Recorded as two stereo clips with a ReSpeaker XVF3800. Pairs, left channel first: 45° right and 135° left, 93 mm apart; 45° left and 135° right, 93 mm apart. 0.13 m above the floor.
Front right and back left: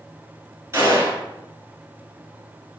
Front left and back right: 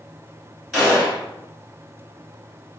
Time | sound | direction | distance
0.7 | a gunshot | 135° left | 1.3 m